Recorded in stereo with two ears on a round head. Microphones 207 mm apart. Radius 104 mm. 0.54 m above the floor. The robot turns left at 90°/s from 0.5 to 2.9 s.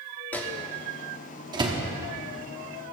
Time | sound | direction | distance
0.3 | a microwave | 10° left (ahead or behind) | 1.0 m